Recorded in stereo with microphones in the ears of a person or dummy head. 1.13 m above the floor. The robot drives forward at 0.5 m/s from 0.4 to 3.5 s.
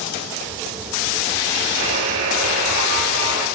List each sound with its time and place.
1.8 s a buzzer: 80° right, 6.5 m